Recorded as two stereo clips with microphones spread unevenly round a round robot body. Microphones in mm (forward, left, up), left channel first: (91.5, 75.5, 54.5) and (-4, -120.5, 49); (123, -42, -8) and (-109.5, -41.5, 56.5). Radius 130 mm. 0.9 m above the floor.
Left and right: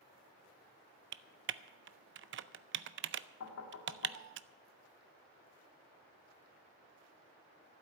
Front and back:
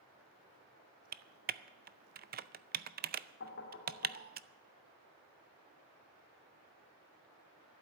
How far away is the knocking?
About 1.8 m.